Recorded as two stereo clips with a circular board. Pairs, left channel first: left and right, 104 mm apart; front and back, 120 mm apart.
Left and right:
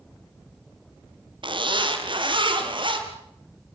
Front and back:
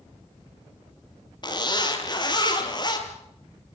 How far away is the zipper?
About 4 m.